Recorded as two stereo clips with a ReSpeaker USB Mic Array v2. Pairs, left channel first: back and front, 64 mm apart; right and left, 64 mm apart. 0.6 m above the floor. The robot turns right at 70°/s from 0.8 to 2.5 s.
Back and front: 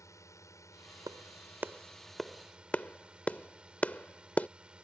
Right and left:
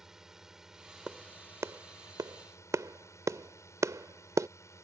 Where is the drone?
170° left; by 4.8 s 70° right.